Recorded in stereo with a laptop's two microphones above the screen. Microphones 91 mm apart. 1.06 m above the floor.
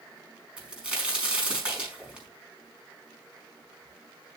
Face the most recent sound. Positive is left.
turn(degrees=-10)  # may be behind; listen again after turning